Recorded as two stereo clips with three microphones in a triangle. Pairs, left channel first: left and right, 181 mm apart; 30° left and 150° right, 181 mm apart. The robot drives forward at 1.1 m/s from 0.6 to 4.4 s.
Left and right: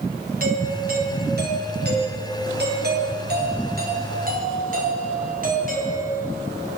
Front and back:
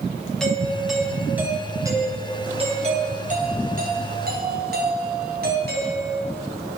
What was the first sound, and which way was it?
A doorbell, 55° right.